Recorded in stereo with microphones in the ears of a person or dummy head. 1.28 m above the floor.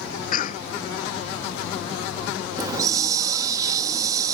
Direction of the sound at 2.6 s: 20° right (ahead or behind).